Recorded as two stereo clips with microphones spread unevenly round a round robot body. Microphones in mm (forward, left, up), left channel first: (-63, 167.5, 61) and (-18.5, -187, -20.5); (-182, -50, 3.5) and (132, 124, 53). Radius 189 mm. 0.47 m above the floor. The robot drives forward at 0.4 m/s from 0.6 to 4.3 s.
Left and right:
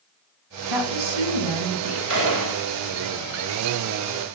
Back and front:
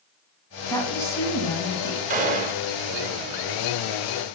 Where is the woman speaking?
70° right, 4.5 m; by 2.0 s 75° right, 4.5 m.